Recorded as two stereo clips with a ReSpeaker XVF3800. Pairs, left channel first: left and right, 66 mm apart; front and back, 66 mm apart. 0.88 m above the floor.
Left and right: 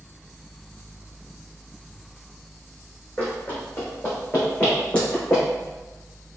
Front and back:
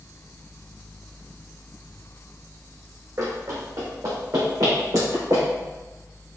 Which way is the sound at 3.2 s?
155° left.